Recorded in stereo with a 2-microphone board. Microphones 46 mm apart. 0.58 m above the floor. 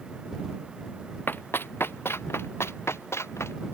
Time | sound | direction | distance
1.3 | running footsteps | 50° left (ahead or behind) | ?